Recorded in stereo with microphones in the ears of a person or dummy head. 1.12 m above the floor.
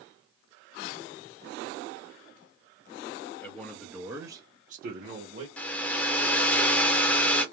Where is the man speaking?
10° left (ahead or behind), 1.1 m; by 5.5 s 55° right (ahead or behind), 1.0 m.